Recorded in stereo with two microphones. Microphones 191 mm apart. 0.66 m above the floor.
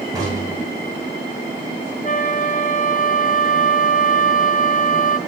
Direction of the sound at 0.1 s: 20° right (ahead or behind).